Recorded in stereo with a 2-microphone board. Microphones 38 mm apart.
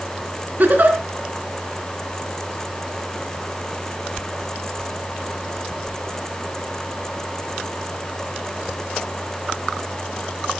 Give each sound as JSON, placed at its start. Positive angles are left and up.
{"t": 0.6, "sound": "a giggle", "side_deg": -50, "distance_m": 3.0}